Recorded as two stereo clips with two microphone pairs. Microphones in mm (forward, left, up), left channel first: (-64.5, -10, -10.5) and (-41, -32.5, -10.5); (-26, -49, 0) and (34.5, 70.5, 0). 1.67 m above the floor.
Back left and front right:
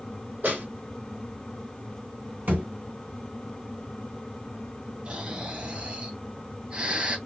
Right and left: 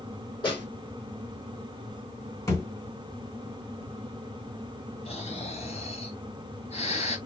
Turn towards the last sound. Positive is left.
turn(degrees=-100)